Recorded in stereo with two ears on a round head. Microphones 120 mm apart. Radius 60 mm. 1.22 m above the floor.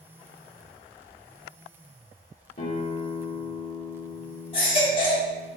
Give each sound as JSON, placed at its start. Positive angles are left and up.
{"t": 2.6, "sound": "a guitar", "side_deg": 55, "distance_m": 1.1}
{"t": 4.5, "sound": "a baby crying", "side_deg": 40, "distance_m": 1.4}